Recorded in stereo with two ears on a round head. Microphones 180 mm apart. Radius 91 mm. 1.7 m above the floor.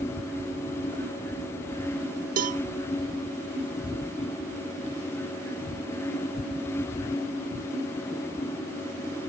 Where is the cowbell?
40° right (ahead or behind), 0.5 m.